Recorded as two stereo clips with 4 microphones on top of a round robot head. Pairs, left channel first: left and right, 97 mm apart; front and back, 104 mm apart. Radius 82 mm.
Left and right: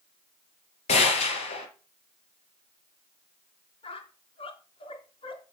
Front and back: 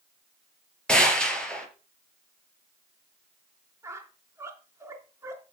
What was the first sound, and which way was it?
A gunshot, 80° left.